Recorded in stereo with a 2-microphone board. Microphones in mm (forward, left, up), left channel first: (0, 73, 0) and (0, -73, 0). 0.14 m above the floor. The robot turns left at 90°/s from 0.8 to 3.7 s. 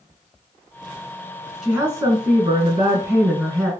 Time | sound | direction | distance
1.6 | a woman speaking | 5° right | 1.5 m